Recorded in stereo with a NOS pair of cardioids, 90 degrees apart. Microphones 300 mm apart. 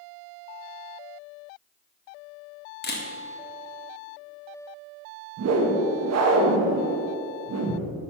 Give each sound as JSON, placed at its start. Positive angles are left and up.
{"t": 2.8, "sound": "a camera shutter", "azimuth_deg": 35, "distance_m": 1.7}
{"t": 5.4, "sound": "a whoosh", "azimuth_deg": -60, "distance_m": 1.4}